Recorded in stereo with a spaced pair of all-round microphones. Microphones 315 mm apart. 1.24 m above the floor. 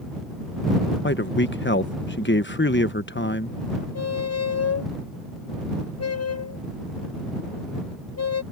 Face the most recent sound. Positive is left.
turn(degrees=50)  # may be behind; listen again after turning